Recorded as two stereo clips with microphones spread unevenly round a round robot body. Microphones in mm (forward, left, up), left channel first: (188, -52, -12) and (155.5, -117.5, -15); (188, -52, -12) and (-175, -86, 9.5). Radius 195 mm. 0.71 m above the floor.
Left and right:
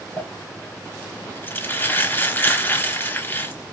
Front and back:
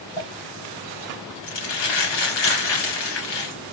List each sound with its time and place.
0.2 s crumpling: straight ahead, 4 m